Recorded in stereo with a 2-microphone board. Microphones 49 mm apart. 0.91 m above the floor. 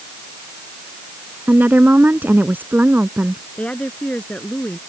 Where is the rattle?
No rattle in this recording.